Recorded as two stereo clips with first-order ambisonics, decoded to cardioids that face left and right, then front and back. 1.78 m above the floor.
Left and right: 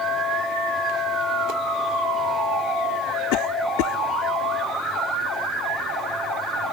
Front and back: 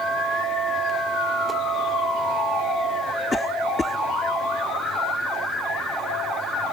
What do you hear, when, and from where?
3.3 s a cough: 80° left